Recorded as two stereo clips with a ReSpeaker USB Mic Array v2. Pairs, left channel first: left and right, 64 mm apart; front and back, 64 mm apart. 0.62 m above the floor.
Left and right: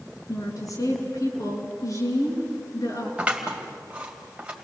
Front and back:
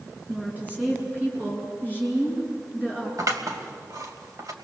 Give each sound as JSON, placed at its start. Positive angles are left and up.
{"t": 0.3, "sound": "a woman speaking", "azimuth_deg": 115, "distance_m": 7.0}
{"t": 3.2, "sound": "scissors", "azimuth_deg": -160, "distance_m": 3.0}